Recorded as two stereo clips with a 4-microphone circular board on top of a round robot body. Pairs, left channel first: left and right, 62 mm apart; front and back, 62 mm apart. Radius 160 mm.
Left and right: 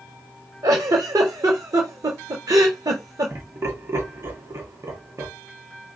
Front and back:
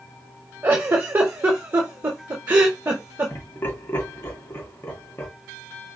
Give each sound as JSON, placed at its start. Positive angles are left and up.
{"t": 0.6, "sound": "a giggle", "azimuth_deg": -120, "distance_m": 0.6}
{"t": 3.3, "sound": "laughter", "azimuth_deg": -50, "distance_m": 2.5}